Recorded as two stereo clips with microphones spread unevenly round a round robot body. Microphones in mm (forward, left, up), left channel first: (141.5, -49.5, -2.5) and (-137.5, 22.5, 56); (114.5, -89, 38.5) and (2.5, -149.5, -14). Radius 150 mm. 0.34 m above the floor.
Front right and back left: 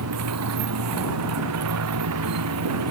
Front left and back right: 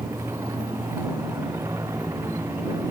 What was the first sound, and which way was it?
A motorcycle, 125° left.